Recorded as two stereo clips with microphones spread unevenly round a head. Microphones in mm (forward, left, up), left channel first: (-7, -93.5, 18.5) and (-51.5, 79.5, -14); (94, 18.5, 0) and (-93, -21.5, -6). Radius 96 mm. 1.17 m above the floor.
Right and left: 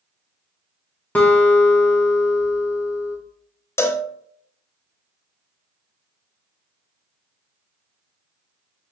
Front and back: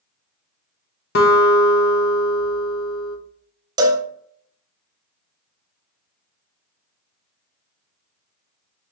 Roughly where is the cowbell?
Behind right.